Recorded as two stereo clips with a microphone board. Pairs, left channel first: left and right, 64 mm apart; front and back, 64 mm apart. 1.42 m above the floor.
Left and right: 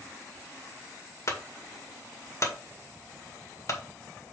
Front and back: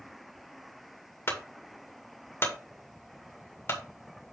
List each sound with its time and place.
1.3 s a clunk: 50° left, 2 m